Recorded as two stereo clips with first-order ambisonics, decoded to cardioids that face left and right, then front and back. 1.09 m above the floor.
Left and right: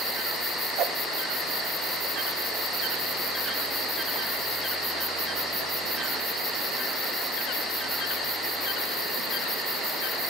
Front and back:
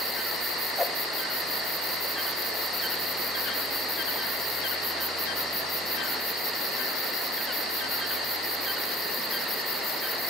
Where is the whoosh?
80° right, 0.6 m.